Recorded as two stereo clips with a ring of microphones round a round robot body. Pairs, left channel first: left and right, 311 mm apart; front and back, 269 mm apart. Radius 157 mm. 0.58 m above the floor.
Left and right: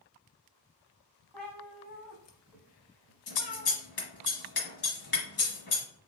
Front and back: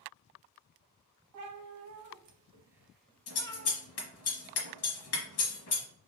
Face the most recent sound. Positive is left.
turn(degrees=35)